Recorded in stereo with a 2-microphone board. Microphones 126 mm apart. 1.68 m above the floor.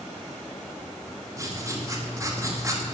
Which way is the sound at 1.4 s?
25° right (ahead or behind).